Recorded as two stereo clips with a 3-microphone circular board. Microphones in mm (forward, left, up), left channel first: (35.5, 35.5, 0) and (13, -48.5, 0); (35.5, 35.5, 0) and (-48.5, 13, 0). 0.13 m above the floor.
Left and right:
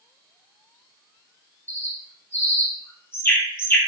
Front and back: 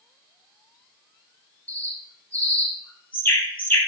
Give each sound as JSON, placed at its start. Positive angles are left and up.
{"t": 1.7, "sound": "a bird", "azimuth_deg": 65, "distance_m": 1.1}